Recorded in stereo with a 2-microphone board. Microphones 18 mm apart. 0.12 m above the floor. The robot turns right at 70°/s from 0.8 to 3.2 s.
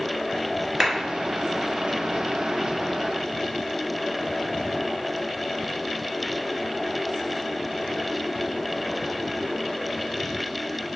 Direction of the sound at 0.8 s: 20° right (ahead or behind).